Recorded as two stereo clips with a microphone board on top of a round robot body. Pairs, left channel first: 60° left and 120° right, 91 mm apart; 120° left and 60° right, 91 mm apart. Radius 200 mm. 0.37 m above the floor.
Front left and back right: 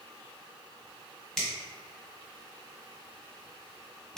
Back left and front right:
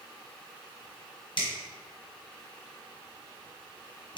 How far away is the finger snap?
About 1.6 m.